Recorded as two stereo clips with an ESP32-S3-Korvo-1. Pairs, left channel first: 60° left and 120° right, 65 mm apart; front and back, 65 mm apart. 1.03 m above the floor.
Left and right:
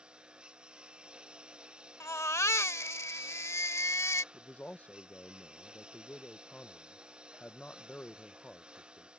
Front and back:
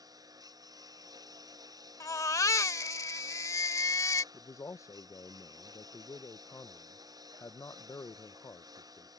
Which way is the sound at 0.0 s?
165° left.